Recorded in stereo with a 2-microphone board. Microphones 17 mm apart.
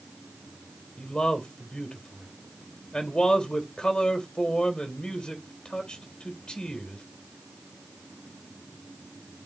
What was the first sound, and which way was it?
A man speaking, 70° left (ahead or behind).